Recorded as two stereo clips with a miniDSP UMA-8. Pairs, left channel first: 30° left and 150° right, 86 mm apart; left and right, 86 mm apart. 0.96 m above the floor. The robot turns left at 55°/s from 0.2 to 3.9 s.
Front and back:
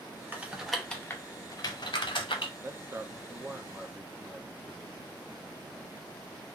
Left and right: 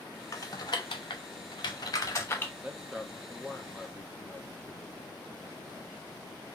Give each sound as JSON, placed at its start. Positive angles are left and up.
{"t": 0.3, "sound": "typing on a keyboard", "azimuth_deg": 140, "distance_m": 0.7}
{"t": 2.6, "sound": "a man speaking", "azimuth_deg": -145, "distance_m": 0.6}